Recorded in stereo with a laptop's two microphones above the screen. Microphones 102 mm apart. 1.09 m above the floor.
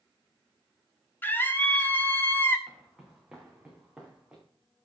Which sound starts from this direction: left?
A scream, at 1.2 s.